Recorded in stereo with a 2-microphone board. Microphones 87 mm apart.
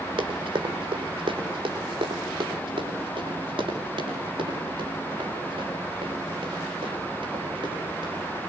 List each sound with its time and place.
0.2 s running footsteps: 80° right, 5 m; by 8.2 s 75° right (ahead or behind), 12.5 m